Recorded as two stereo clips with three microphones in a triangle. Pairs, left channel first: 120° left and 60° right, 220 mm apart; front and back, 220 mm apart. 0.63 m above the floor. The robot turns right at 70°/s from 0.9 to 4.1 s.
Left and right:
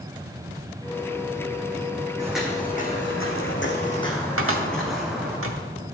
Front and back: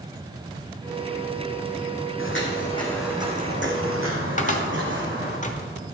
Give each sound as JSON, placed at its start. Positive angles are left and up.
{"t": 2.2, "sound": "footsteps", "azimuth_deg": 10, "distance_m": 2.5}
{"t": 4.4, "sound": "a cupboard door", "azimuth_deg": -50, "distance_m": 1.0}